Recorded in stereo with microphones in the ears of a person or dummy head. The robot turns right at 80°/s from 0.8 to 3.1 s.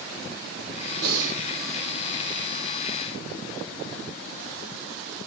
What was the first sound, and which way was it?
Breathing, 70° right.